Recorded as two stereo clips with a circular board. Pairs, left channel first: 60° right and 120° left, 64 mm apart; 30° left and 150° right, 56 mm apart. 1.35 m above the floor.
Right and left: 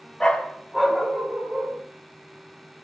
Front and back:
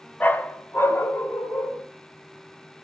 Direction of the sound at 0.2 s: 10° left.